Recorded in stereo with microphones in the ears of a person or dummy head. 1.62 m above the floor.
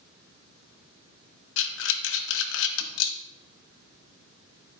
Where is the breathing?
80° left, 0.8 m.